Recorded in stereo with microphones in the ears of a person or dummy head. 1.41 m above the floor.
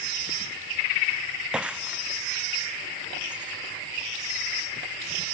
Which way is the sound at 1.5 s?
5° right (ahead or behind).